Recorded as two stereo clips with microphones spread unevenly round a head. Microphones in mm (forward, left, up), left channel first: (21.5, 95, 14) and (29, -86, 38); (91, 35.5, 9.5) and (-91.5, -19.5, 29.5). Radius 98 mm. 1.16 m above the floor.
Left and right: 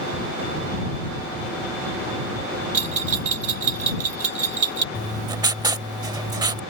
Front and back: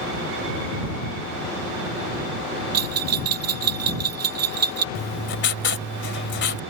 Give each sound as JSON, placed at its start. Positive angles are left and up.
{"t": 2.7, "sound": "a bell", "azimuth_deg": -145}
{"t": 5.0, "sound": "writing", "azimuth_deg": -25}